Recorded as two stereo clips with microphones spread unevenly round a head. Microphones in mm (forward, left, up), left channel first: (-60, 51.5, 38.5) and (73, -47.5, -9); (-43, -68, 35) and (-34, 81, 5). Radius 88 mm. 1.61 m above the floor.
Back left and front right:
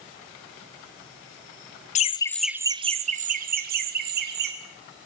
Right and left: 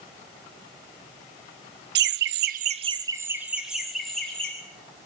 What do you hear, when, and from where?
1.9 s laughter: 95° left, 0.8 m; by 4.5 s 10° right, 2.5 m